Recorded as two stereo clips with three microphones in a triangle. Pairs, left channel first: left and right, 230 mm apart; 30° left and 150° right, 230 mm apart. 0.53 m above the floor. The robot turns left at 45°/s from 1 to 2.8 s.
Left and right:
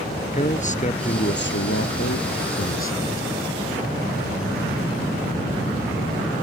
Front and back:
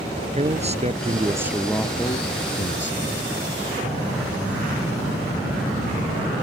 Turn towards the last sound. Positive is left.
turn(degrees=65)